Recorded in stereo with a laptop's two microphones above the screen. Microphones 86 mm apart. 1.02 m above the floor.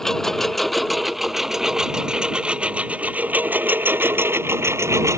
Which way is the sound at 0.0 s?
5° left (ahead or behind).